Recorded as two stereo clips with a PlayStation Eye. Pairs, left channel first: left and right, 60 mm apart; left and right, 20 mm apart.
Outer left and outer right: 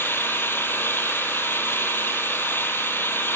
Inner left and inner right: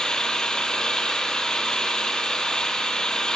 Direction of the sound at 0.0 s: 40° left (ahead or behind).